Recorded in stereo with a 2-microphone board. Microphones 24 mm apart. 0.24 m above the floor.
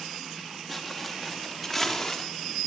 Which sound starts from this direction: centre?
Footsteps, at 0.7 s.